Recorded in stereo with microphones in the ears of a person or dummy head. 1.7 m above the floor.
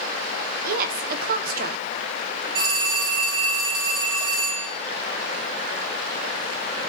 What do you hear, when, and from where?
0.7 s a woman speaking: 55° right (ahead or behind), 1.0 m
2.5 s a phone ringing: 60° right (ahead or behind), 8.5 m